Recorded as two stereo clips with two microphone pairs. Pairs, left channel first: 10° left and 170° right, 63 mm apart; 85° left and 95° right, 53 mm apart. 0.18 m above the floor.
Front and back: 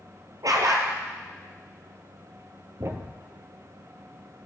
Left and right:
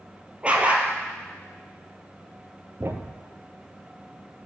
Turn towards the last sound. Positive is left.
turn(degrees=-135)